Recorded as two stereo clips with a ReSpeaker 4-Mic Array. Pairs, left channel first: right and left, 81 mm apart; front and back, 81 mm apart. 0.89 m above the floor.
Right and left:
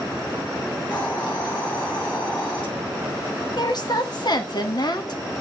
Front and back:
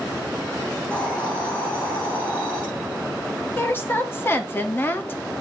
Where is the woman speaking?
65° right, 1.4 m.